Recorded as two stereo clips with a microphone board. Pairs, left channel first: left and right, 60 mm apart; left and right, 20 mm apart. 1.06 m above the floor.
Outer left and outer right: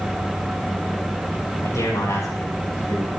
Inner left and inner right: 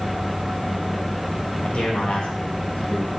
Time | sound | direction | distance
1.6 | a man speaking | 70° left (ahead or behind) | 5.5 m